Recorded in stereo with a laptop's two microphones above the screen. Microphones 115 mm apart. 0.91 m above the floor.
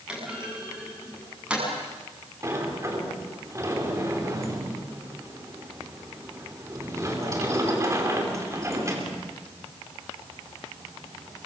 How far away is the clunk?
About 6 m.